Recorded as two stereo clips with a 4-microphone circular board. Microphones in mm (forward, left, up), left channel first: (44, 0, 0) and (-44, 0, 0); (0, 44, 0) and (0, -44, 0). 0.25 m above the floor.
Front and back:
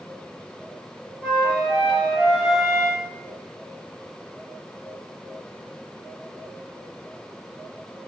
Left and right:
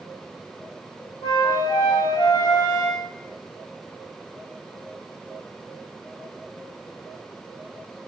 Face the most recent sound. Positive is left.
turn(degrees=100)